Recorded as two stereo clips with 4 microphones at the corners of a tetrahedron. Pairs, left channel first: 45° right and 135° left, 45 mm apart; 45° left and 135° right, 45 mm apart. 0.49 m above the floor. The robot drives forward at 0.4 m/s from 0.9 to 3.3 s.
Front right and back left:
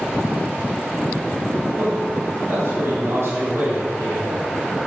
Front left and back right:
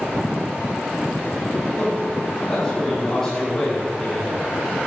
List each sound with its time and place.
1.7 s a man speaking: 105° left, 3 m; by 4.4 s 120° left, 3 m